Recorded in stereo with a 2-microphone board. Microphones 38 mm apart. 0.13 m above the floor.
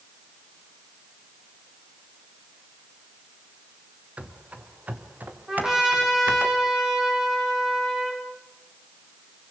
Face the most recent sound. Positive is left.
turn(degrees=-15)  # may be behind; listen again after turning